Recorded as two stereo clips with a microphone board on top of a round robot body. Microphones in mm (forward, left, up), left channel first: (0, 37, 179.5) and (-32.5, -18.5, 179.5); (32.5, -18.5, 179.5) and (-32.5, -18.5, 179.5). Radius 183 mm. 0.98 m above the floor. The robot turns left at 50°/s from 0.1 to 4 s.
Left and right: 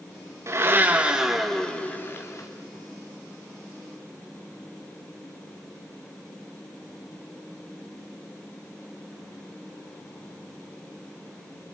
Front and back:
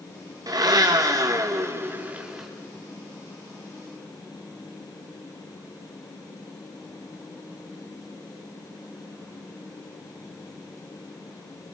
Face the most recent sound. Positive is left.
turn(degrees=20)